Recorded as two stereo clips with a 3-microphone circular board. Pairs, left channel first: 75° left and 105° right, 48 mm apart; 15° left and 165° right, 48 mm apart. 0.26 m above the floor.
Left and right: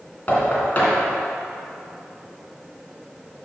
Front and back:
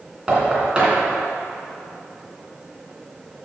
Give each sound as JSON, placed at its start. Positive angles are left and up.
{"t": 0.3, "sound": "knocking", "azimuth_deg": 130, "distance_m": 2.5}